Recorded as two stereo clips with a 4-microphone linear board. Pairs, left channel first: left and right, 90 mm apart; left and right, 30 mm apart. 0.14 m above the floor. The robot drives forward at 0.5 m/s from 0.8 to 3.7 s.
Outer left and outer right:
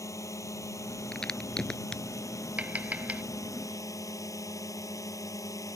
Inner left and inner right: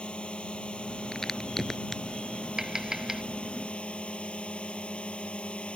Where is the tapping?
15° right (ahead or behind).